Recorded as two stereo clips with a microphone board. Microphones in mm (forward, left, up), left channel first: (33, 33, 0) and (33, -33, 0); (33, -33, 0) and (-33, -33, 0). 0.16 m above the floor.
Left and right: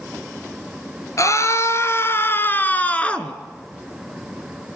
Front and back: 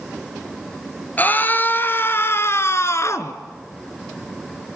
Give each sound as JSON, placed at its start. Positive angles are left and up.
{"t": 1.2, "sound": "a scream", "azimuth_deg": 60, "distance_m": 2.0}